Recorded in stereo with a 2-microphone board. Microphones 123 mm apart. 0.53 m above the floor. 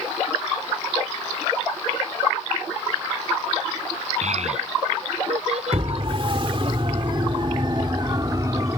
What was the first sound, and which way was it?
A child speaking, 65° right (ahead or behind).